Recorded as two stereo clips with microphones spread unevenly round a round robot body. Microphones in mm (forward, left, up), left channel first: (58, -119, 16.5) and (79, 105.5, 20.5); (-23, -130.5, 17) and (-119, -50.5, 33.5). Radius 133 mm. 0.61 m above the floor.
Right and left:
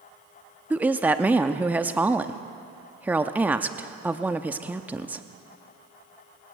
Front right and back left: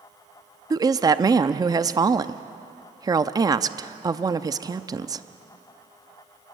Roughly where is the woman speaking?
Behind.